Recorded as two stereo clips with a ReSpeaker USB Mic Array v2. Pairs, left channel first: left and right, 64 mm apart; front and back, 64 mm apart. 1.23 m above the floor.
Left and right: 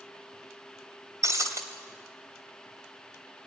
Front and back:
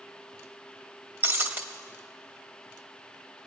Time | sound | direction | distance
1.2 | breaking glass | 125° right | 2.5 m